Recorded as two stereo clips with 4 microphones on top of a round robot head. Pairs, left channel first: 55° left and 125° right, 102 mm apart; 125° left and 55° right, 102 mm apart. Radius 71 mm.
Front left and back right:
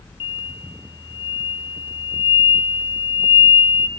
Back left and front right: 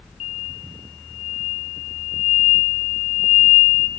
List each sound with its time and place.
0.2 s an explosion: 95° left, 0.6 m